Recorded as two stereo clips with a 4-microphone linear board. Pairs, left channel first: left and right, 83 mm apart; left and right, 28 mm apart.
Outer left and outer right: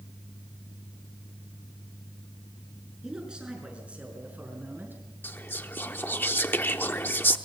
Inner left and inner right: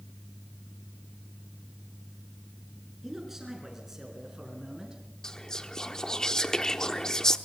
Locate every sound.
3.0 s a man speaking: 10° right (ahead or behind), 6.5 m; by 5.0 s 25° right (ahead or behind), 5.5 m
5.2 s whispering: 25° left (ahead or behind), 0.8 m